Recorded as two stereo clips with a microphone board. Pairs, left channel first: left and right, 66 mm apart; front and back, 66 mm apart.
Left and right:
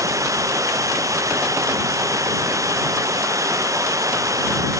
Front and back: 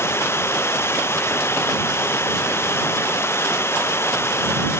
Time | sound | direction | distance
0.0 | running water | 50° right | ?